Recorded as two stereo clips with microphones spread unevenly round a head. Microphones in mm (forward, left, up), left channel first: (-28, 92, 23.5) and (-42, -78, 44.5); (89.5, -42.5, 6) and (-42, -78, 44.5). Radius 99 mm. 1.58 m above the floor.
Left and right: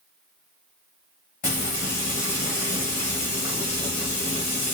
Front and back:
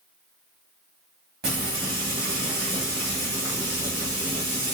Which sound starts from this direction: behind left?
Frying, at 1.4 s.